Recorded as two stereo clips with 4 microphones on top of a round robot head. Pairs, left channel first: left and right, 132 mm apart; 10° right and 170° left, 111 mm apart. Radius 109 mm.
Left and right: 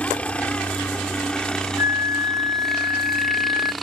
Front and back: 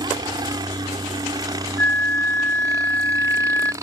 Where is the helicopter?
165° left; by 3.8 s straight behind.